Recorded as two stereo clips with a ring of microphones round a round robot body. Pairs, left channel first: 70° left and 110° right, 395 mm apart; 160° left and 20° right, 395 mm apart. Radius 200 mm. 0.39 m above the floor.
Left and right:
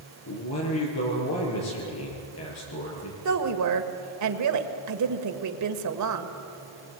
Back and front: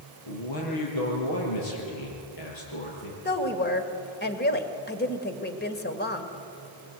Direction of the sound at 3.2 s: 145° right.